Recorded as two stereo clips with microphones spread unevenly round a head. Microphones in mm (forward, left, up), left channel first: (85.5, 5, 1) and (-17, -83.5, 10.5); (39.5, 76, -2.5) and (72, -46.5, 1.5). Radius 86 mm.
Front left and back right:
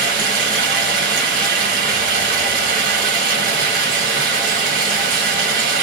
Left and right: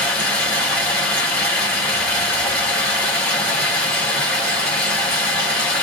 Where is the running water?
175° right, 1.0 m.